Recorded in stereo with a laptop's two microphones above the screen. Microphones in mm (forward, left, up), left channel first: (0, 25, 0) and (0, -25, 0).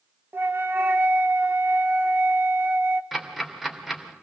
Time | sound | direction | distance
0.3 | a flute | 45° right (ahead or behind) | 1.0 m
3.1 | ticking | 5° right (ahead or behind) | 2.5 m